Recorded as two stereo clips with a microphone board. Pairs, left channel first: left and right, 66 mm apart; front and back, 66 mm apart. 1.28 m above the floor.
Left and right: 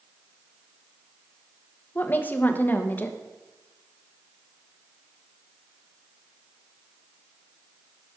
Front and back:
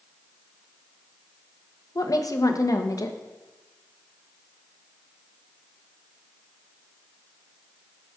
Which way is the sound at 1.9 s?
30° left.